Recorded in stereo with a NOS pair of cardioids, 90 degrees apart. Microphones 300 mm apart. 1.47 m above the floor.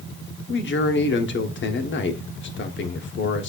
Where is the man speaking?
40° left, 0.9 m.